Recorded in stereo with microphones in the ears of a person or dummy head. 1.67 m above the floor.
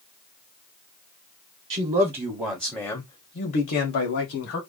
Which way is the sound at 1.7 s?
40° right (ahead or behind).